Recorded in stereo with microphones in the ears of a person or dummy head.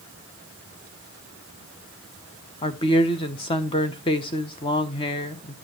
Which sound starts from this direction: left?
A woman speaking, at 2.6 s.